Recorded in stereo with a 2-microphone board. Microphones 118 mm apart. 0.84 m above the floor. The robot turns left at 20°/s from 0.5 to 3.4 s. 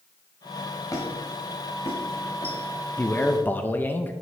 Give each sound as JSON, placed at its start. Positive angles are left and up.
{"t": 0.9, "sound": "a squeak", "side_deg": 30, "distance_m": 1.9}
{"t": 3.0, "sound": "a man speaking", "side_deg": 15, "distance_m": 0.5}